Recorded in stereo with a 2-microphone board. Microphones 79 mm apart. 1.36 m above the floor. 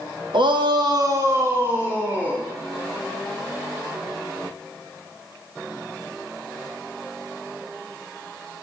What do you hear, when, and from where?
0.3 s a shout: 75° right (ahead or behind), 1.1 m; by 2.4 s 15° right (ahead or behind), 3 m